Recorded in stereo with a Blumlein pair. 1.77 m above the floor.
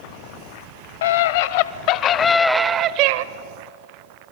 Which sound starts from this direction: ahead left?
A scream, at 1.0 s.